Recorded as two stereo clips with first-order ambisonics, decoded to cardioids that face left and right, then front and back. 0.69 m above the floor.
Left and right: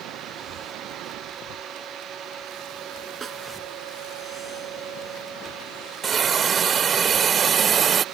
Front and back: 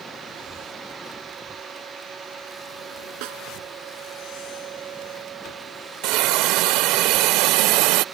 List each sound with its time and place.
3.2 s a snare drum: 160° right
6.0 s a hiss: 155° right